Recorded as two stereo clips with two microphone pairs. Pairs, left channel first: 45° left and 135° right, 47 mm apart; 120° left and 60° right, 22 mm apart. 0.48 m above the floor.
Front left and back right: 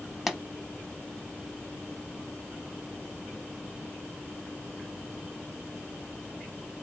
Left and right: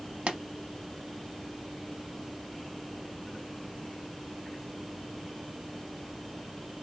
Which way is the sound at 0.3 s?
55° right.